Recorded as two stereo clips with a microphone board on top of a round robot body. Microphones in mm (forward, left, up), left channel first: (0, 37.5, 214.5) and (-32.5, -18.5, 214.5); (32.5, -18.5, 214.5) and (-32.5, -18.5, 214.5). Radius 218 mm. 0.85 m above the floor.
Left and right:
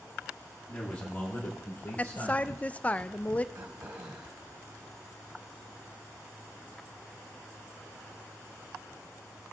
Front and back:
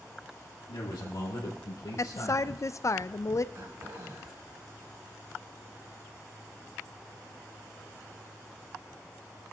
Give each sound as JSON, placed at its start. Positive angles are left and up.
{"t": 0.7, "sound": "a man speaking", "azimuth_deg": -10, "distance_m": 1.8}
{"t": 2.0, "sound": "a woman speaking", "azimuth_deg": 0, "distance_m": 0.6}
{"t": 3.5, "sound": "throat clearing", "azimuth_deg": -150, "distance_m": 1.8}